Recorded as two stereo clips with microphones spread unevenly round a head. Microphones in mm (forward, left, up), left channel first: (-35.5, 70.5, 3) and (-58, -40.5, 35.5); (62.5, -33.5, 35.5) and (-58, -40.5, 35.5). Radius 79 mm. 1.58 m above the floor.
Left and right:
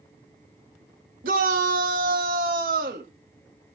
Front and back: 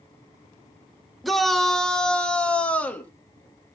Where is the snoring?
I don't hear snoring.